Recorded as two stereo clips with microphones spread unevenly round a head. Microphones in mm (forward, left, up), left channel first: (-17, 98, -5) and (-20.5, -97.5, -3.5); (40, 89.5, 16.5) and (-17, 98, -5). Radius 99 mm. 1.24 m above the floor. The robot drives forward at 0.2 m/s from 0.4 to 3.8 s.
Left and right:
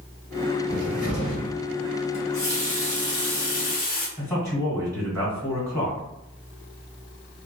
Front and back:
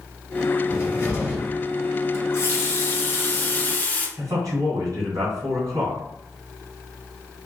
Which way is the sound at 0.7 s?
35° left.